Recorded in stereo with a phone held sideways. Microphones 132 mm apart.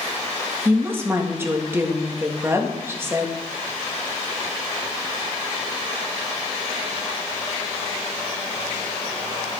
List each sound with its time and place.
0.7 s a woman speaking: 20° right (ahead or behind), 1.3 m